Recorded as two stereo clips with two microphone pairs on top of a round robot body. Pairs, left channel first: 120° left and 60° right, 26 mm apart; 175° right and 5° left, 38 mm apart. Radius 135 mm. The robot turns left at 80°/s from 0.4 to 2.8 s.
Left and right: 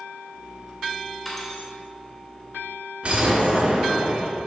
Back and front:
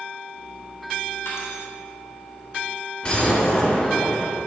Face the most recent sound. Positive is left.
turn(degrees=-115)